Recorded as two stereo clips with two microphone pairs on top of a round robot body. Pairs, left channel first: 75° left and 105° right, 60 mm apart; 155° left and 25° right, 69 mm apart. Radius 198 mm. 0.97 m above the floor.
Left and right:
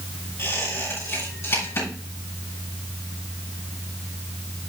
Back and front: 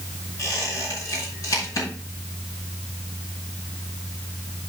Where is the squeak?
120° left, 5 m.